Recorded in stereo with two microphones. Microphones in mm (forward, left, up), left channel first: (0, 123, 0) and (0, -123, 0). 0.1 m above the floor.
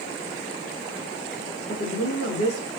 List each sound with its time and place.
1.7 s a woman speaking: 75° left (ahead or behind), 5.5 m